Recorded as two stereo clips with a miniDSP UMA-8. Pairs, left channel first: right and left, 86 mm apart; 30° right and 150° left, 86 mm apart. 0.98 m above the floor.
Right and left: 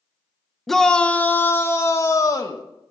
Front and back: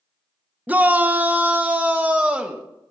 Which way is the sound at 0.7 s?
Straight behind.